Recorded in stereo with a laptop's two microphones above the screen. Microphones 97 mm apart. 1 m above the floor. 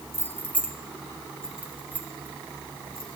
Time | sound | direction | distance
0.1 | keys jangling | 30° left (ahead or behind) | 1.6 m